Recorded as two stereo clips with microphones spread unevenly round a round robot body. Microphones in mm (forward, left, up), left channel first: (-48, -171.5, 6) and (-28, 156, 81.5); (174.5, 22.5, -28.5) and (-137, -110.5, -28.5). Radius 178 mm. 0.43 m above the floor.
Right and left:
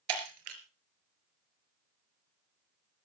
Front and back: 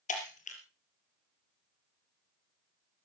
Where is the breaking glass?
95° left, 4 m.